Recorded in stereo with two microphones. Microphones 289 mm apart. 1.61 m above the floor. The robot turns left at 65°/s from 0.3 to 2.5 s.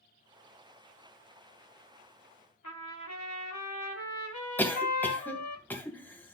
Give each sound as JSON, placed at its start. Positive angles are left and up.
{"t": 2.6, "sound": "a trumpet", "side_deg": 75, "distance_m": 1.8}
{"t": 4.6, "sound": "a cough", "side_deg": 5, "distance_m": 2.0}